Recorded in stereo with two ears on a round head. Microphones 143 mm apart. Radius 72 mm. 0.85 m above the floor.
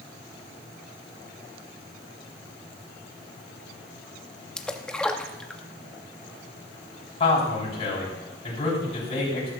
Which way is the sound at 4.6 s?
5° left (ahead or behind).